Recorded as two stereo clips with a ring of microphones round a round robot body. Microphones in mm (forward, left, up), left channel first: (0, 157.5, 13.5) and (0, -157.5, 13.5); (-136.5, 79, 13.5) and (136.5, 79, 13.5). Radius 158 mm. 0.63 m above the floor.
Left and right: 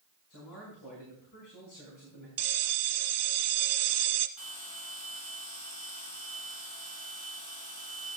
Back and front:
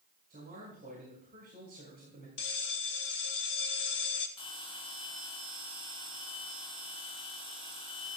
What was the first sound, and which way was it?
A man speaking, 55° left.